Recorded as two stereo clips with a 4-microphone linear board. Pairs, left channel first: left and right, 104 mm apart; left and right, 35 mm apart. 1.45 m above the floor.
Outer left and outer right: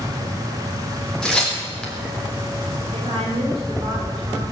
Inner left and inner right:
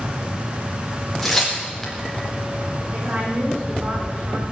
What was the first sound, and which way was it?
Tearing paper, 5° left (ahead or behind).